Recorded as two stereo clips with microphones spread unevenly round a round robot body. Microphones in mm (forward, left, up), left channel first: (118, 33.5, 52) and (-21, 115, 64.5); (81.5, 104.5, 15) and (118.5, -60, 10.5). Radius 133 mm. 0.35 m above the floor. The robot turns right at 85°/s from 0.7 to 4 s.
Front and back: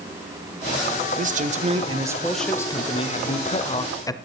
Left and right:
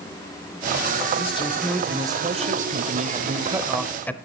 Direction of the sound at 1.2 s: 145° left.